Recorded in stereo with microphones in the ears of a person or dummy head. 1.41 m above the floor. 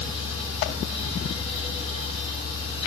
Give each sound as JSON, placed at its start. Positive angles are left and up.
{"t": 0.0, "sound": "a machine running", "side_deg": 30, "distance_m": 6.5}